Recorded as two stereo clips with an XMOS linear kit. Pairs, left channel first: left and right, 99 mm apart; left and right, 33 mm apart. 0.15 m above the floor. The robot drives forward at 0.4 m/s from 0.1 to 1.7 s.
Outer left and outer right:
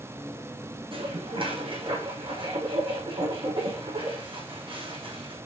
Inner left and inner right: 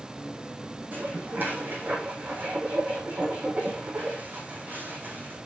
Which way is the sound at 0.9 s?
65° right (ahead or behind).